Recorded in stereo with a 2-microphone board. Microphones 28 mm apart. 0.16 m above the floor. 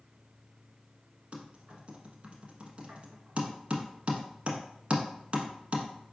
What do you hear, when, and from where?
1.3 s typing on a keyboard: 50° right (ahead or behind), 0.9 m